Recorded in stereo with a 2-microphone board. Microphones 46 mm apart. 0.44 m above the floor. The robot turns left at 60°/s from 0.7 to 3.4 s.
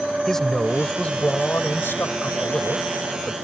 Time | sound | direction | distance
0.3 | a man speaking | 170° left | ?